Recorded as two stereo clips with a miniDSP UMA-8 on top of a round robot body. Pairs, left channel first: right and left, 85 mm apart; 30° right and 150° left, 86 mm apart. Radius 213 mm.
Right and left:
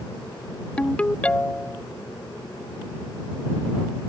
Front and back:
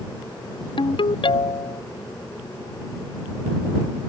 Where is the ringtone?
15° right.